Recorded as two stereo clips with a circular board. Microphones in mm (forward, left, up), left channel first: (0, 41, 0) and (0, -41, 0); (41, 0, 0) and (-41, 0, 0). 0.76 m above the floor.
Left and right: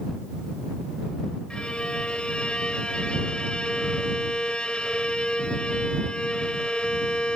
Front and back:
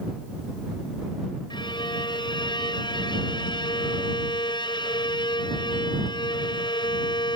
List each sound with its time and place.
1.5 s a violin: 15° left